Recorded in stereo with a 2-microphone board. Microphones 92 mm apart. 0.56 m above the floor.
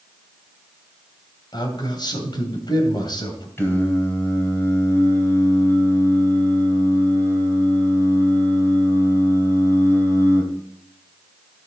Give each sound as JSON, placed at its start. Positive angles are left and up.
{"t": 1.5, "sound": "a man speaking", "side_deg": 55, "distance_m": 2.5}
{"t": 3.6, "sound": "singing", "side_deg": 25, "distance_m": 2.5}